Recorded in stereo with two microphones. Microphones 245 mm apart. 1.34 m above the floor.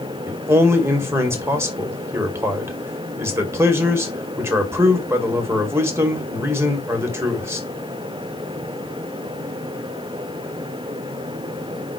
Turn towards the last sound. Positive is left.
turn(degrees=-10)  # may be behind; listen again after turning